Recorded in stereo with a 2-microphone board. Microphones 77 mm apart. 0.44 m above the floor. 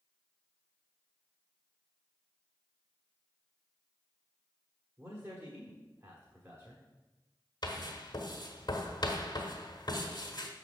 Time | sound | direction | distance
5.0 | a man speaking | 35° right (ahead or behind) | 1.2 m
7.6 | writing | 60° left (ahead or behind) | 1.2 m